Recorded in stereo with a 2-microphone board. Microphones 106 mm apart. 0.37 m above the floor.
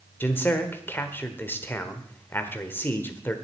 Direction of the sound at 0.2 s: 20° left (ahead or behind).